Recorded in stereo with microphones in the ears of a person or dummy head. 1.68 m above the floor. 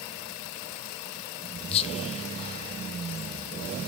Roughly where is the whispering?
Left.